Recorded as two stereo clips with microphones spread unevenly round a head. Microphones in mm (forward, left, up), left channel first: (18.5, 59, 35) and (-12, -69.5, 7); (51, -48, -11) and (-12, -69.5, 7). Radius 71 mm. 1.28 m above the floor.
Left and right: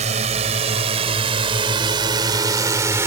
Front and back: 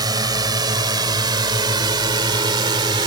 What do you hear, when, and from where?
0.0 s a drone: 145° right; by 3.1 s 175° right